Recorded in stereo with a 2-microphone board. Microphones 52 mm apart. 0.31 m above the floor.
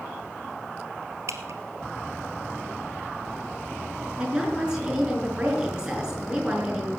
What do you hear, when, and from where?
1.3 s dripping: 70° right (ahead or behind), 1.3 m
4.2 s a woman speaking: 15° right (ahead or behind), 5 m